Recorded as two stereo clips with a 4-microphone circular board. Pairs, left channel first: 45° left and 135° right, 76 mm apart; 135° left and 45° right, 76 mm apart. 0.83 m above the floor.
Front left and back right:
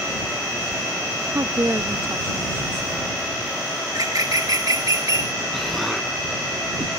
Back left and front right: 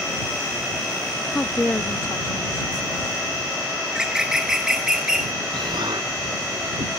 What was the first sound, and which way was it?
A woman speaking, 160° right.